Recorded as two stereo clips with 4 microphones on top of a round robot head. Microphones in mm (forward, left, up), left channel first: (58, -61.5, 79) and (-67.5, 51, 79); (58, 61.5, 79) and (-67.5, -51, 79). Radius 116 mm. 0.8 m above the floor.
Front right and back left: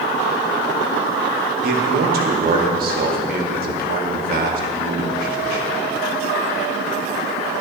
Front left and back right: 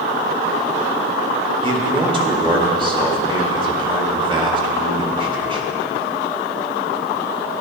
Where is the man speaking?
165° left, 1.9 m.